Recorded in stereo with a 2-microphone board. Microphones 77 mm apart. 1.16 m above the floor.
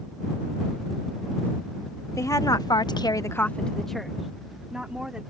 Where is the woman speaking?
45° left (ahead or behind); by 5.2 s 10° right (ahead or behind).